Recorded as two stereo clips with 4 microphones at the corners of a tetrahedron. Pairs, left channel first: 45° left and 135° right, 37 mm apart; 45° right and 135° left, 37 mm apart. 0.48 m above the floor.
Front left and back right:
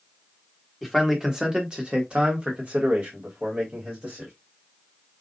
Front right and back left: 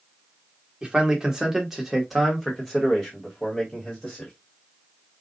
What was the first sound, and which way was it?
A man speaking, 145° left.